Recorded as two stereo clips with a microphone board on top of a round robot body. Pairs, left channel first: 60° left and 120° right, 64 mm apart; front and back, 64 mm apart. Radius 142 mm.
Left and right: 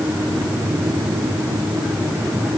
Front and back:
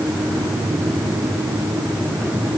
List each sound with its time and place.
Only background noise.